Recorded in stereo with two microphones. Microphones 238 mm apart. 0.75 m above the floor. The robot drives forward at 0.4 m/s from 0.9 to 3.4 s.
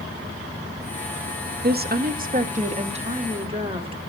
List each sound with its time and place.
1.6 s a woman speaking: 45° right (ahead or behind), 0.5 m; by 4.0 s 25° right (ahead or behind), 0.9 m